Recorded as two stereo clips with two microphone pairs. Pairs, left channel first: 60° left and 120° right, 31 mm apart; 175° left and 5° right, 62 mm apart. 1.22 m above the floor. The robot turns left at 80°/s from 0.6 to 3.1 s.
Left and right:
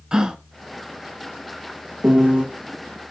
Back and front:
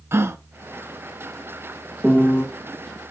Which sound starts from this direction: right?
A piano, at 2.0 s.